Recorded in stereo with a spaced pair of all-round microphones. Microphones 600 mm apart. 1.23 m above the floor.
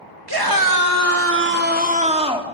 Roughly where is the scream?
Right.